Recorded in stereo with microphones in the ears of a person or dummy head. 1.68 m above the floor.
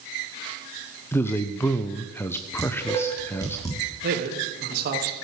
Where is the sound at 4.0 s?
60° right (ahead or behind), 3 m.